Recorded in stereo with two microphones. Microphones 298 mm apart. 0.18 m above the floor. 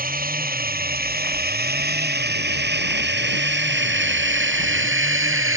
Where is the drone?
30° right (ahead or behind); by 5.6 s 45° right (ahead or behind).